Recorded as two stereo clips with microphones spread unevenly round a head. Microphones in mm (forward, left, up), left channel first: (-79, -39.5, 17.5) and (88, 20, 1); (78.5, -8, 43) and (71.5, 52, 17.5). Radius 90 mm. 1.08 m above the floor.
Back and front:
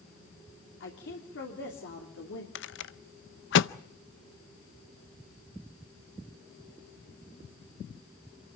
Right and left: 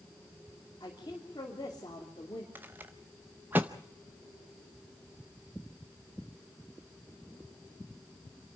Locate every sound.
0.8 s a woman speaking: 135° right, 3 m
2.5 s a rattle: 170° left, 0.6 m